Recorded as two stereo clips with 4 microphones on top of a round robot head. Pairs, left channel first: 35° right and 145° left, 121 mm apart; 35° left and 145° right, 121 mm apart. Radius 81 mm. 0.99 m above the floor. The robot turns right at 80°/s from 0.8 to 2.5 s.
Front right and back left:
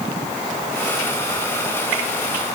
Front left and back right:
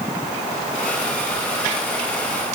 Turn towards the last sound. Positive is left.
No sound to turn to.